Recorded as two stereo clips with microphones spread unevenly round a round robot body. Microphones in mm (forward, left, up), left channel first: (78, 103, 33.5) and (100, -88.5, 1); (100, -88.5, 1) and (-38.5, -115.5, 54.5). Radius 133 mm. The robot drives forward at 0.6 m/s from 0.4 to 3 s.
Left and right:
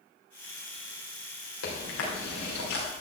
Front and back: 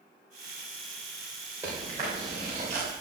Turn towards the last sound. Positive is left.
turn(degrees=125)